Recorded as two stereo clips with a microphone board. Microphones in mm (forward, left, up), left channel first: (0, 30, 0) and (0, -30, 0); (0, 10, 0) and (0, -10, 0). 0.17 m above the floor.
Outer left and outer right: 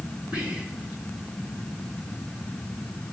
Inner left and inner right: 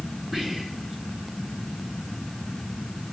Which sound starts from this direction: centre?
Whispering, at 0.3 s.